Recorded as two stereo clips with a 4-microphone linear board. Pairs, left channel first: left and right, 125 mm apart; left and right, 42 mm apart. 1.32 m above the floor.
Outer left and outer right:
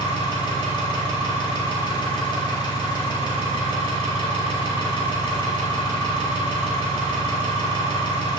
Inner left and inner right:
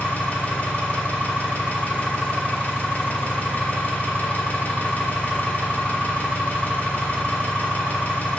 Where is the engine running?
40° left (ahead or behind), 1.5 m.